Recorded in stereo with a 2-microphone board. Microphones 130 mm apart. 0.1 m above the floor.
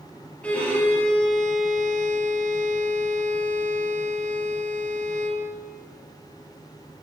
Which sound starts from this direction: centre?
A violin, at 0.4 s.